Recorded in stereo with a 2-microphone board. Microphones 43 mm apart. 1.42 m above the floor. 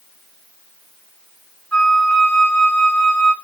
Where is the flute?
30° left (ahead or behind), 2.5 m.